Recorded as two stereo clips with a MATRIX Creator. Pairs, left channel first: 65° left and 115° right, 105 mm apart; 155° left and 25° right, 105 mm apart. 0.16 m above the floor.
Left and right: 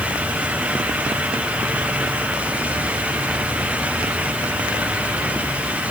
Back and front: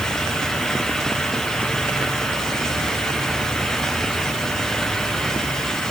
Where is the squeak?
I don't hear a squeak.